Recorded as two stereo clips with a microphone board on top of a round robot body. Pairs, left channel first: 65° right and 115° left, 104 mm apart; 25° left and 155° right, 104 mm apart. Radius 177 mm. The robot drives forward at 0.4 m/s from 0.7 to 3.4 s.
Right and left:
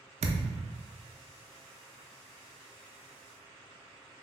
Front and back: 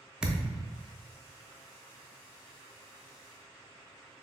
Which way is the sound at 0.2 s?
120° left.